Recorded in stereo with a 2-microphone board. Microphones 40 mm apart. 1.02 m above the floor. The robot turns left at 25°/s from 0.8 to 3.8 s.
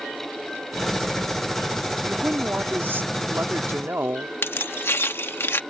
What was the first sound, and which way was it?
A woman speaking, 45° right.